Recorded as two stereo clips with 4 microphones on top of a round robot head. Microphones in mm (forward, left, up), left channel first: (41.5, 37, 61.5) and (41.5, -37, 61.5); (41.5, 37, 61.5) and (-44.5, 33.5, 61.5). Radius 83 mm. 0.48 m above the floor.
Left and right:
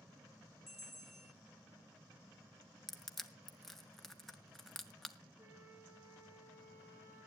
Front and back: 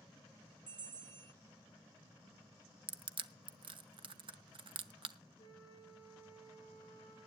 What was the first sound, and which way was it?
A bell, straight behind.